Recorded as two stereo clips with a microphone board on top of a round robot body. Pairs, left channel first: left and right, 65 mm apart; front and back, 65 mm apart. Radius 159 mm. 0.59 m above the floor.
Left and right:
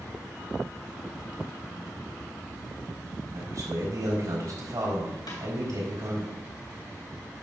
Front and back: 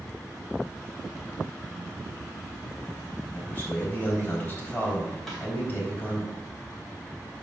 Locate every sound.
3.3 s a man speaking: 60° right, 4 m
5.3 s a snare drum: 90° left, 3 m